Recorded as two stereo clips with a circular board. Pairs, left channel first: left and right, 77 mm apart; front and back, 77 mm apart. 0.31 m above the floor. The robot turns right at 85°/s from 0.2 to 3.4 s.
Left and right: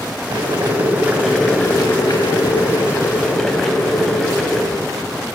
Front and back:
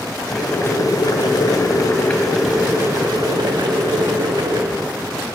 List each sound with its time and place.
0.3 s boiling: 85° right, 0.5 m; by 4.6 s 175° left, 0.5 m